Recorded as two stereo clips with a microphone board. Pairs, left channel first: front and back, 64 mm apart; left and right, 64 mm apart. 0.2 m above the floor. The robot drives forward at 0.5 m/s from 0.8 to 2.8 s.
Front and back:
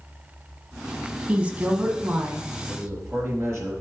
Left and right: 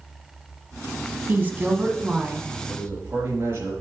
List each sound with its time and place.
1.3 s a woman speaking: 125° right, 1.1 m; by 2.5 s 150° right, 1.4 m
2.7 s a man speaking: 140° right, 3.5 m